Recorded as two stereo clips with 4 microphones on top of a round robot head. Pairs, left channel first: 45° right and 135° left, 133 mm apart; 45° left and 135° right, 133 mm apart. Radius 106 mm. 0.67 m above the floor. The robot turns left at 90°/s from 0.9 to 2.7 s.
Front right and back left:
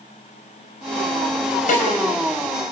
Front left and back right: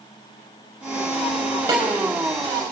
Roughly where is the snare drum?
Right.